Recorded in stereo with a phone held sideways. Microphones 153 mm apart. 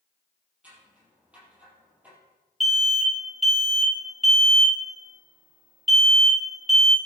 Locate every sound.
0.6 s scissors: 10° right (ahead or behind), 5 m
2.6 s an alarm: centre (ahead or behind), 1.9 m